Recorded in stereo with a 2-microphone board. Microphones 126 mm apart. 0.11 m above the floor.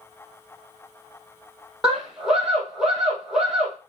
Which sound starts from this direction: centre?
A scream, at 1.8 s.